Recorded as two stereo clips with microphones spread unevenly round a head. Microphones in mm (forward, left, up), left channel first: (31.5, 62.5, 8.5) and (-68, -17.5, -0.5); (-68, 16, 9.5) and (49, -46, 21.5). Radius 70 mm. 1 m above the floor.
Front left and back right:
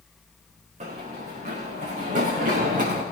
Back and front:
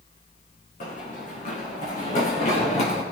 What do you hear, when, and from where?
0.8 s running footsteps: 175° right, 5.5 m; by 3.0 s 165° right, 5 m